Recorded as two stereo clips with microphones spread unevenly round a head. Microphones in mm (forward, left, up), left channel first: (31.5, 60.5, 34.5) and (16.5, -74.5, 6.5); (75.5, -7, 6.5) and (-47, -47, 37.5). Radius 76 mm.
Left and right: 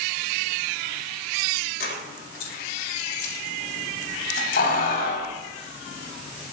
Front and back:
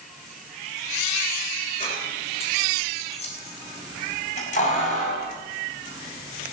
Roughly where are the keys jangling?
Left.